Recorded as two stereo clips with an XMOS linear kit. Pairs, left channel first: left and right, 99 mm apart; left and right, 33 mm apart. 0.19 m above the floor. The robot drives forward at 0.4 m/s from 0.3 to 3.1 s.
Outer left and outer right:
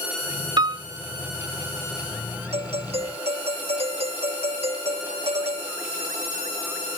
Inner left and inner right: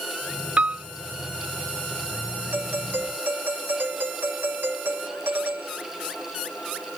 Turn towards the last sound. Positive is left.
turn(degrees=-80)